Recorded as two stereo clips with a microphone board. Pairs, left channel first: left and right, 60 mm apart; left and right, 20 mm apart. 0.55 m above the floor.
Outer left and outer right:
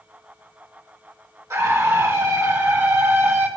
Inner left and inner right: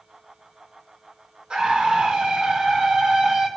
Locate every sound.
1.5 s a scream: 60° right (ahead or behind), 4 m; by 3.5 s 50° right (ahead or behind), 3 m